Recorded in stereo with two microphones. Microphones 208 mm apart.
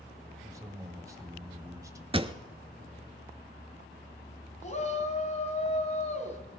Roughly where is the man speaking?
Centre.